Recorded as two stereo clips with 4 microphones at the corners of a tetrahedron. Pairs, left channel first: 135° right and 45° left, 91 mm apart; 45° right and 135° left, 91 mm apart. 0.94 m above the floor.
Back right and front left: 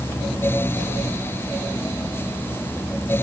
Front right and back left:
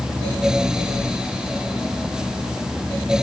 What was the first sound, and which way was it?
Only background noise.